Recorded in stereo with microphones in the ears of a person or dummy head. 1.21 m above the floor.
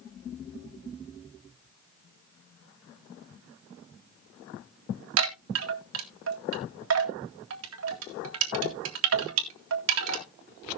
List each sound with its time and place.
5.2 s a chime: 70° right (ahead or behind), 1.9 m